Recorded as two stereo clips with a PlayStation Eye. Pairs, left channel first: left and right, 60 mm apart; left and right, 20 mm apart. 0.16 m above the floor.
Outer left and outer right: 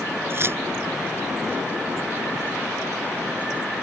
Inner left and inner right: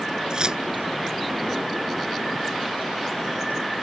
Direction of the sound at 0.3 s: 45° right (ahead or behind).